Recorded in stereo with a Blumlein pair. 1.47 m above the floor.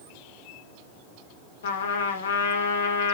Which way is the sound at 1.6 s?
60° left.